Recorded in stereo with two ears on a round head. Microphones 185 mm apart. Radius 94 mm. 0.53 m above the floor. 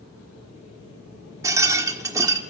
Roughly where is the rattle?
Centre.